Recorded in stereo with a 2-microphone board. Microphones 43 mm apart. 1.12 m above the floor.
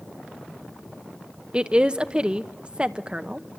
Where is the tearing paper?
No tearing paper in this recording.